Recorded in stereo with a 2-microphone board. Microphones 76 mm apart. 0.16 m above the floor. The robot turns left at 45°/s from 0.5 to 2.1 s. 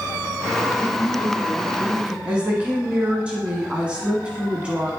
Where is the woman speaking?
15° right (ahead or behind), 1.4 m.